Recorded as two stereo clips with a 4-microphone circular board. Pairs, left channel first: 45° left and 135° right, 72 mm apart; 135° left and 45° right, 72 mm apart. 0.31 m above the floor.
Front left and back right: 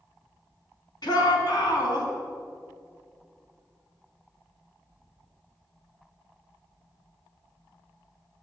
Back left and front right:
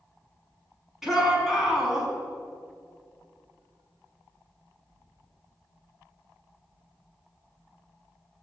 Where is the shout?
40° left, 4 m.